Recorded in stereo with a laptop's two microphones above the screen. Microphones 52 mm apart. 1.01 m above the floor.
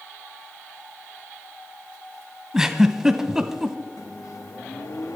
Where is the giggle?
10° right (ahead or behind), 1.3 m.